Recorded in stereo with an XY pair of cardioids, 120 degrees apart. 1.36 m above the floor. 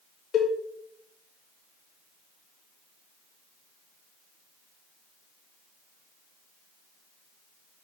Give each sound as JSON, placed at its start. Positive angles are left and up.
{"t": 0.3, "sound": "a cowbell", "azimuth_deg": 65, "distance_m": 1.7}